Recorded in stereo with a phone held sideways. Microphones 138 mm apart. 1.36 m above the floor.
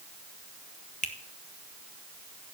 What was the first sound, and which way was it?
A finger snap, 65° left (ahead or behind).